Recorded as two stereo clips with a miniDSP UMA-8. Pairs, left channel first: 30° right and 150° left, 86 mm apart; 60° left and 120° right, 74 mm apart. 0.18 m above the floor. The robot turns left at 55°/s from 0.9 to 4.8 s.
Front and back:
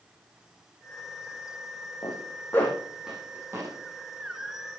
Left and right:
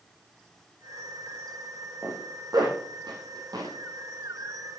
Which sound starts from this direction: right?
A zipper, at 2.0 s.